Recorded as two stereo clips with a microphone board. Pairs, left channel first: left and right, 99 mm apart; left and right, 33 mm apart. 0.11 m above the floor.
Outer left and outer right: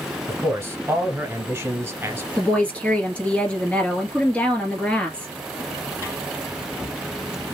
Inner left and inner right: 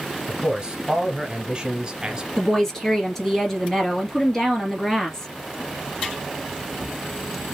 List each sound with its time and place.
0.3 s a man speaking: 25° right (ahead or behind), 1.4 m
2.4 s a woman speaking: 15° left (ahead or behind), 1.7 m